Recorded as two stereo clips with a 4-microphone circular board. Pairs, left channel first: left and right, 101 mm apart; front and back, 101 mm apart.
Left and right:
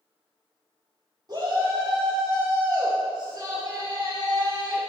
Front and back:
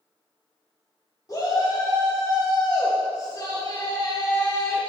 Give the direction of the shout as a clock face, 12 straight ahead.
2 o'clock.